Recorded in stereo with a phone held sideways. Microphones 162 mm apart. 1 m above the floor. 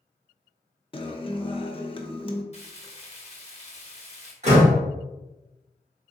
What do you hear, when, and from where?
0.9 s a guitar: 30° left (ahead or behind), 0.5 m
2.5 s frying: 40° left (ahead or behind), 1.1 m
4.4 s a door slam: 40° right (ahead or behind), 1.8 m